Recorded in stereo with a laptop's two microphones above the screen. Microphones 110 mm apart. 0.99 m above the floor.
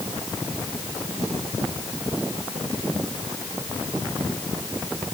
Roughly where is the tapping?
I don't hear tapping.